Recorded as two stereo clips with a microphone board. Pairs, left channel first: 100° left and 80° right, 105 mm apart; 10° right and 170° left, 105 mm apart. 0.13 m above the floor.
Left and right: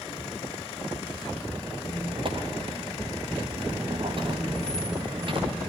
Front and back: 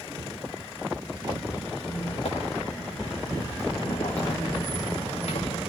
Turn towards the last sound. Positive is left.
turn(degrees=-35)